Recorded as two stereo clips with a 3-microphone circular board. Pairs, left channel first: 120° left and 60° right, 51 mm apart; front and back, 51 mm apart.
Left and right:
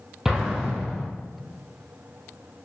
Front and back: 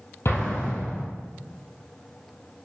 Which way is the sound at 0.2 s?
20° left.